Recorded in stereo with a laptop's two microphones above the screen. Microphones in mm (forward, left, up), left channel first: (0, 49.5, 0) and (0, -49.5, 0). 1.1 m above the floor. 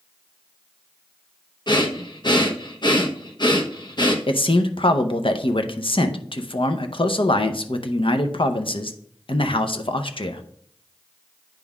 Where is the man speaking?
65° left (ahead or behind), 0.6 m.